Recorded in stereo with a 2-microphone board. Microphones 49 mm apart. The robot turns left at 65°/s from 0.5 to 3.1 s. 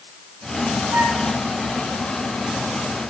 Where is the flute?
70° right (ahead or behind), 2.5 m.